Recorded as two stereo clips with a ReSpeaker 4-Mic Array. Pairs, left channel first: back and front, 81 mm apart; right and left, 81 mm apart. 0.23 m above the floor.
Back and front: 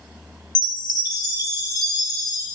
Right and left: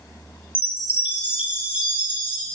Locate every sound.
0.6 s a chime: 160° left, 0.9 m